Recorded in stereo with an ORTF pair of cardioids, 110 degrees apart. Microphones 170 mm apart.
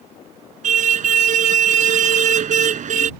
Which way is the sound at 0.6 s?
45° right.